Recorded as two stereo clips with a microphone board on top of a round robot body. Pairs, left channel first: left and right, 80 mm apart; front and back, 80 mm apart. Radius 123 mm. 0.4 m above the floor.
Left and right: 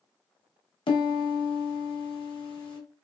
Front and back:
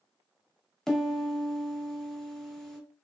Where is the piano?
85° left, 1.1 m.